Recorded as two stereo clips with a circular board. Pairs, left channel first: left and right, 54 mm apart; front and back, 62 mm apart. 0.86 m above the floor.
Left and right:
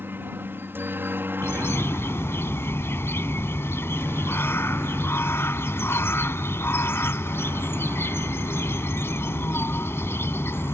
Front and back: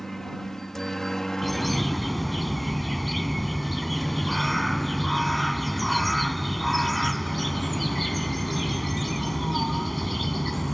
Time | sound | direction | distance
0.0 | a helicopter | 80° right | ?
1.4 | a bird | 90° left | ?